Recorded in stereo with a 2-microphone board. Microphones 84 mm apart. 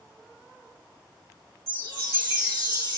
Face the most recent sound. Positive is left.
turn(degrees=50)  # may be behind; listen again after turning